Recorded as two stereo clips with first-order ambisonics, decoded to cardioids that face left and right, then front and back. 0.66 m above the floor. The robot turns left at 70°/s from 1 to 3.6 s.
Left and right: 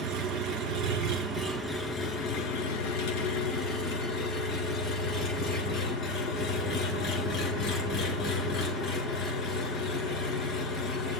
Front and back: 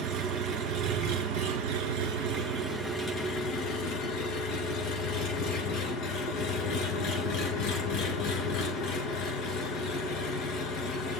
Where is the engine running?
145° right, 3 m; by 11.2 s 35° left, 3 m.